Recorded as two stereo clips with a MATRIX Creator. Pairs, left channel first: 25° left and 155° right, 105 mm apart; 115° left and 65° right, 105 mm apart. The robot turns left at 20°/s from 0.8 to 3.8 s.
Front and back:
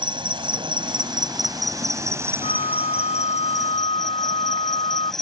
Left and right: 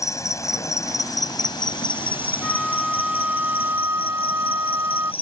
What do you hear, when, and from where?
0.0 s an insect: 170° left; by 5.2 s 110° left
2.4 s a flute: 25° left; by 5.1 s straight ahead